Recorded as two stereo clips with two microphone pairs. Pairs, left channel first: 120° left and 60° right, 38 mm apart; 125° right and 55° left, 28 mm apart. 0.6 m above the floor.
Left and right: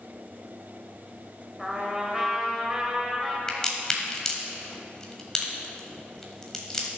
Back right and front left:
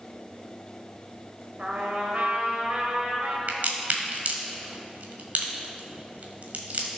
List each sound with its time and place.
1.6 s a trumpet: 20° left, 1.9 m
3.5 s a crack: 45° left, 1.7 m